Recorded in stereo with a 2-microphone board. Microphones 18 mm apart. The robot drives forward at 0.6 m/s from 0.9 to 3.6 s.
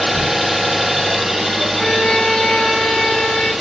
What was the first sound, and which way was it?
An engine running, centre (ahead or behind).